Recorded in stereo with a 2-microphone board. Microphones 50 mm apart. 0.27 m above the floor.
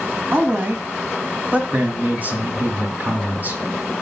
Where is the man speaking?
35° right (ahead or behind), 2 m.